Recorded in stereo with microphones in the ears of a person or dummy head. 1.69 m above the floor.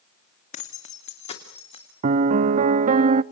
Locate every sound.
0.5 s keys jangling: 50° left (ahead or behind), 2 m; by 1.9 s 40° left (ahead or behind), 3.5 m
2.0 s a piano: 35° right (ahead or behind), 0.7 m